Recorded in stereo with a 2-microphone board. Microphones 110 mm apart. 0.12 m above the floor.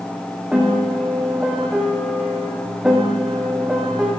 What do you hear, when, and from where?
0.5 s a piano: 10° right (ahead or behind), 5 m